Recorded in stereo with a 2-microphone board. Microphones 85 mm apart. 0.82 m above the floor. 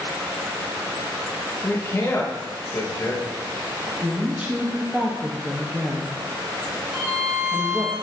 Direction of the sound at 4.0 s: 20° right (ahead or behind).